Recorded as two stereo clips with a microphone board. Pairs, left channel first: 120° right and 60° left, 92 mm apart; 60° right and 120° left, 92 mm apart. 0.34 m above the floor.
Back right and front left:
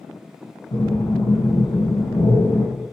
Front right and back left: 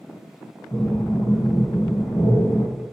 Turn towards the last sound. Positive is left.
turn(degrees=-115)